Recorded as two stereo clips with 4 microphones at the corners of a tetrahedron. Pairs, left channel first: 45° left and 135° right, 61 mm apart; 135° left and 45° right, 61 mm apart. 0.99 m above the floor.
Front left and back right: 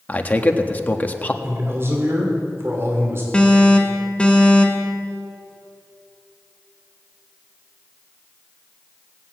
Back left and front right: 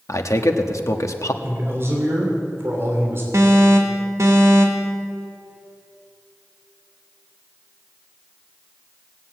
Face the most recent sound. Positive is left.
turn(degrees=-25)